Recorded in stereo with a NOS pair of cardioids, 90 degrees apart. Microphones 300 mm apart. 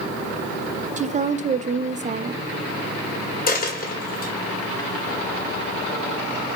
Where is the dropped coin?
30° left, 1.7 m.